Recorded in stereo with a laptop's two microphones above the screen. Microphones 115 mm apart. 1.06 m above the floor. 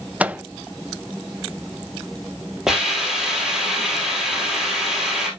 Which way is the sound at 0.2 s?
15° right (ahead or behind).